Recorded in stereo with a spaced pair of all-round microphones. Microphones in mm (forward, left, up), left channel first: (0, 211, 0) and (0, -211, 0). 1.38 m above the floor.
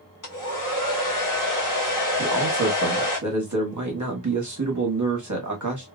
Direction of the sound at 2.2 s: 45° right (ahead or behind).